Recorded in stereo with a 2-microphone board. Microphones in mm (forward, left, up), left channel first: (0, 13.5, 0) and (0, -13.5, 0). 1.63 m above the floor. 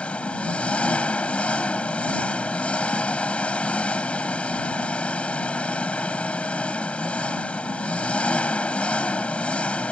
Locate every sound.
0.0 s an engine running: 55° left (ahead or behind)